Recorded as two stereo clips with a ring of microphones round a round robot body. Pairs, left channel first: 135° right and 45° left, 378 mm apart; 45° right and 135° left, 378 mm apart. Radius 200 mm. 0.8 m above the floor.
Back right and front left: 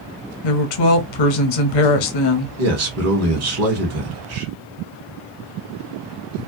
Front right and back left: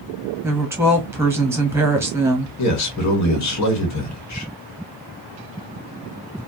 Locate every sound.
0.4 s a woman speaking: 140° right, 0.9 m
2.6 s a man speaking: straight ahead, 1.1 m